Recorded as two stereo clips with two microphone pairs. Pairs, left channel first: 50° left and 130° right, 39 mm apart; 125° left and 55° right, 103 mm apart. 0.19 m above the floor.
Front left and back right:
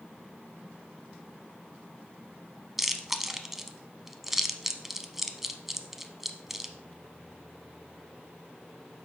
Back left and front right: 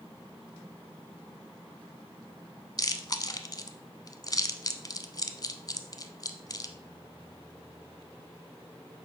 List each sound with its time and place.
2.8 s chewing: 145° left, 0.7 m